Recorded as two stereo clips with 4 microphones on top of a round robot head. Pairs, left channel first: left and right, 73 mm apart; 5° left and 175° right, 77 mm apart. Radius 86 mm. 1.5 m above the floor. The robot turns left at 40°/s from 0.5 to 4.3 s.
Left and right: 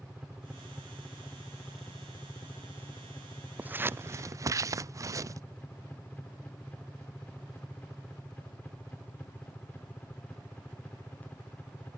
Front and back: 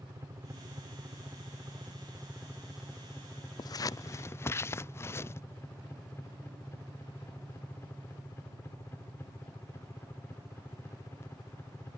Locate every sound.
0.0 s a helicopter: 175° right; by 12.0 s 35° left
3.6 s scissors: 20° right; by 5.4 s 50° right